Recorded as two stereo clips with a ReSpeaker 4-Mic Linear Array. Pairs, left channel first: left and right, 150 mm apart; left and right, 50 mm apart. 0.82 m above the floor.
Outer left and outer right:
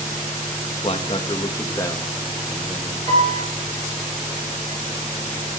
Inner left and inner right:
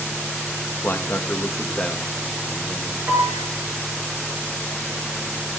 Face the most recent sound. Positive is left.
turn(degrees=-40)  # may be behind; listen again after turning